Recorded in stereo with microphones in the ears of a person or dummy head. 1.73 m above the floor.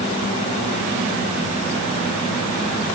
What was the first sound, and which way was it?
Only background noise.